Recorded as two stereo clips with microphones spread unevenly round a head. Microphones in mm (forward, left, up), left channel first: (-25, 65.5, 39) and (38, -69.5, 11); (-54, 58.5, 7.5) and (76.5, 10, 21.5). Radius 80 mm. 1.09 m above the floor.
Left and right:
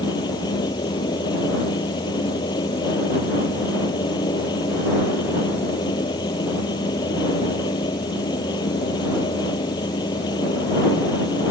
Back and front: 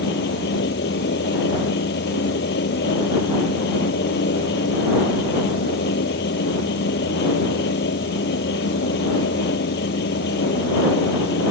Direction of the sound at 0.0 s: Straight behind.